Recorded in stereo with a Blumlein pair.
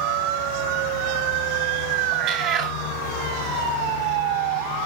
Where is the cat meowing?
35° right, 2.5 m.